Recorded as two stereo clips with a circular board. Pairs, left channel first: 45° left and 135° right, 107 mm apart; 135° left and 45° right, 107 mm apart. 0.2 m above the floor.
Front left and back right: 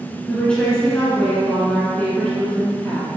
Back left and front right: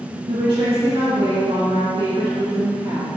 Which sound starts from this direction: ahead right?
A woman speaking, at 0.3 s.